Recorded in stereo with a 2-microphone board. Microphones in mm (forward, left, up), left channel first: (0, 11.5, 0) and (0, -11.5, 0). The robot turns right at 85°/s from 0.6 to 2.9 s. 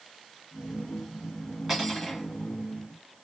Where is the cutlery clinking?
10° right, 1.4 m; by 2.3 s 40° left, 1.4 m.